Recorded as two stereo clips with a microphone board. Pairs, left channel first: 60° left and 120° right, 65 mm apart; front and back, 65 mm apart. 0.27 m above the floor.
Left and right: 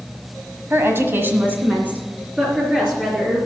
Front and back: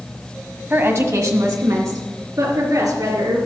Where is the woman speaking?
140° right, 1.3 m; by 3.4 s 165° left, 4 m.